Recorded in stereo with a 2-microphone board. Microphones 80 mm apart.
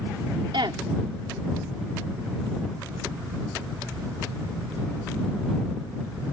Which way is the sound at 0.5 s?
85° right.